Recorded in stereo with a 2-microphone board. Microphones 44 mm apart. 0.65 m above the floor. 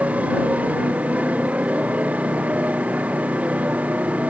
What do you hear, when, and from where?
0.0 s a motorcycle: 30° right (ahead or behind)